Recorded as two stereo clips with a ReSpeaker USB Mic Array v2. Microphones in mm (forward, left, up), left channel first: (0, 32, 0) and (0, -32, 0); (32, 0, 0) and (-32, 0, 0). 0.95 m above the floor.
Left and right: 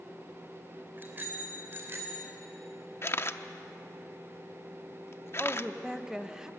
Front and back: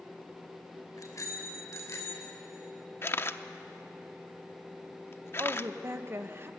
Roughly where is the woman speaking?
Behind.